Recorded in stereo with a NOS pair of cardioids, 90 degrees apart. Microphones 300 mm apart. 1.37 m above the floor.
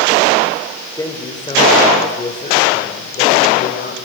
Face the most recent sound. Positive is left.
turn(degrees=35)